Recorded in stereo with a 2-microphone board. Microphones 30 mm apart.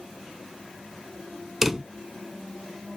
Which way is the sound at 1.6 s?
10° right (ahead or behind).